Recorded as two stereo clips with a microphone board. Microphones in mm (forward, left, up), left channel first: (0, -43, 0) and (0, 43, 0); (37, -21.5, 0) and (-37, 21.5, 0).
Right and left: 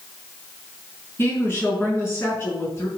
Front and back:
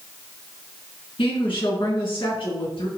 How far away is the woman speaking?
About 5.5 m.